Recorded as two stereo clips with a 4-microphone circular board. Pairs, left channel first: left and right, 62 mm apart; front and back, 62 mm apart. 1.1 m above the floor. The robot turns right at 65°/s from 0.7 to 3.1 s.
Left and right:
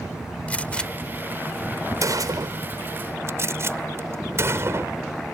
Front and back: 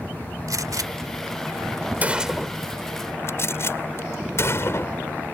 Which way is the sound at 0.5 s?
160° left.